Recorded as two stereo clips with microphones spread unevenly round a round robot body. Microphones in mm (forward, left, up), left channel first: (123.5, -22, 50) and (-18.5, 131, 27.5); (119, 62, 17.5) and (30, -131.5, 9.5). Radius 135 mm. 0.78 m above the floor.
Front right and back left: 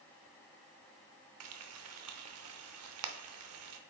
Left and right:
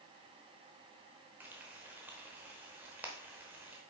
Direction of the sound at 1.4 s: 160° left.